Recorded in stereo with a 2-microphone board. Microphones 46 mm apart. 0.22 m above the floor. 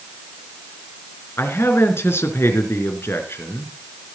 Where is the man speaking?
65° left (ahead or behind), 3 m.